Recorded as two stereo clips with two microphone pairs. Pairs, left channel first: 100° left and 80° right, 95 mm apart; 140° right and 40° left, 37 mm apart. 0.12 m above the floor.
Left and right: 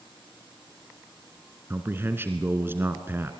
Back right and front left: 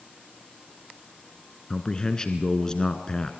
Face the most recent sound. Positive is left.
turn(degrees=-105)